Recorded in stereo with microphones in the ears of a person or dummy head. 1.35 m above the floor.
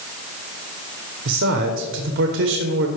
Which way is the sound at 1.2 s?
65° right (ahead or behind).